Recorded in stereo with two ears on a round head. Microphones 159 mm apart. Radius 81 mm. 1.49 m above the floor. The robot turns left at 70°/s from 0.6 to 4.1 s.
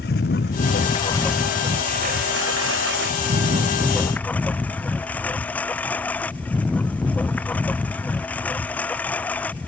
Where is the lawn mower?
55° left; by 9.7 s 170° left.